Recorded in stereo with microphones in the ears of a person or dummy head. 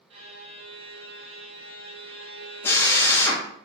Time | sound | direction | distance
0.1 | a violin | 30° right (ahead or behind) | 0.8 m
2.6 | a drill | 10° left (ahead or behind) | 0.7 m